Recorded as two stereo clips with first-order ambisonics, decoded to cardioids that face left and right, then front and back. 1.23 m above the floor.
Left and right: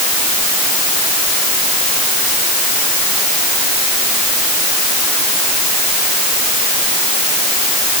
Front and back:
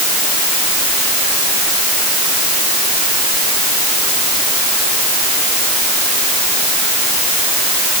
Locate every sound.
Only background noise.